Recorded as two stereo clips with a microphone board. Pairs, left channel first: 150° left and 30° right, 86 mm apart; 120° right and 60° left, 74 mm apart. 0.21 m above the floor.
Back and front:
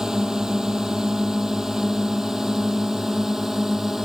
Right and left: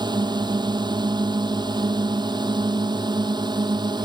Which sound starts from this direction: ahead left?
A drone, at 0.0 s.